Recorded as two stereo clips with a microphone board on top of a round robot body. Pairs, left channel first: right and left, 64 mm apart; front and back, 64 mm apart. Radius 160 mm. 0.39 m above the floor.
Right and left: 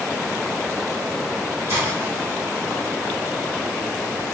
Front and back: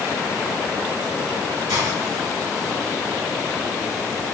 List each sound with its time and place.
1.7 s a hiss: 145° left, 1.9 m